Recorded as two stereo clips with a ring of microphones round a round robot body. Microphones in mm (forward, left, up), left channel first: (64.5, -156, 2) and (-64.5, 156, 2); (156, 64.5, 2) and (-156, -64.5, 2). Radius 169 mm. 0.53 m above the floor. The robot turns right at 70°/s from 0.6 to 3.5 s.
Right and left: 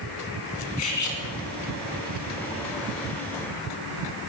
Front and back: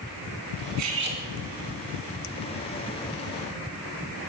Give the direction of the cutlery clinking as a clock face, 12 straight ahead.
4 o'clock.